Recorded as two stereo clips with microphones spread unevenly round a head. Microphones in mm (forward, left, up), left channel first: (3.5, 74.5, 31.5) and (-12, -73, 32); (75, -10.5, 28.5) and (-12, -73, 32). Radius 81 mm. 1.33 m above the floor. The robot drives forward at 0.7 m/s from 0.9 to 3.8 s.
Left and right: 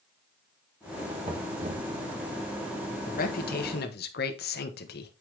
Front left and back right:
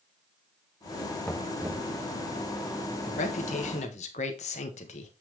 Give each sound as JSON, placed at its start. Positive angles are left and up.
{"t": 1.2, "sound": "knocking", "azimuth_deg": -40, "distance_m": 0.7}
{"t": 3.1, "sound": "a man speaking", "azimuth_deg": 50, "distance_m": 1.7}